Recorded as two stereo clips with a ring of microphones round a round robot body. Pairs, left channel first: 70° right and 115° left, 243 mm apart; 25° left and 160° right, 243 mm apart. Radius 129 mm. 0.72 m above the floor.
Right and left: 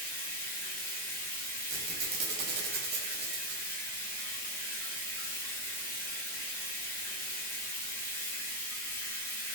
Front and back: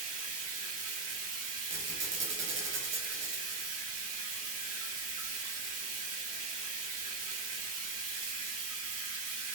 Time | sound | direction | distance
0.0 | running water | 145° right | 1.2 m
1.7 | a squeak | 160° left | 1.2 m